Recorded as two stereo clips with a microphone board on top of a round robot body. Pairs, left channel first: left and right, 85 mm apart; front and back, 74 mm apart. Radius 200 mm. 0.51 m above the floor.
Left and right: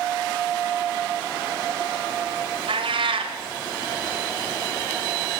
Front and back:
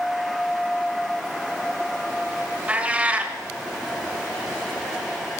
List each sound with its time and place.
2.7 s a cat meowing: 110° right, 1.2 m